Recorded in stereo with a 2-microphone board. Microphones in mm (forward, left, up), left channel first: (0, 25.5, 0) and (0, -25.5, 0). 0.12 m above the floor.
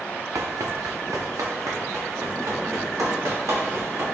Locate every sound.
0.3 s running footsteps: 70° right (ahead or behind), 0.5 m